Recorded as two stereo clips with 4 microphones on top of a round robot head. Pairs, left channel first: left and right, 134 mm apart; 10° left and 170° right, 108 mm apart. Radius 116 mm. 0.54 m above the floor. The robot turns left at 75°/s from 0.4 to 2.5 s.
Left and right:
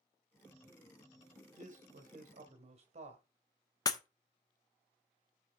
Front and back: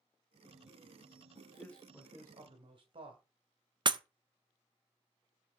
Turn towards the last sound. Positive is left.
turn(degrees=150)